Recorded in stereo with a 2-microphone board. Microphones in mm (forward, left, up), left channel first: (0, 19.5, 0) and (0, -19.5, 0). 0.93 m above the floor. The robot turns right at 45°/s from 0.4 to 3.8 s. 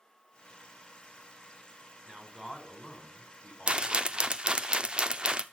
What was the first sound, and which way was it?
A man speaking, 25° right.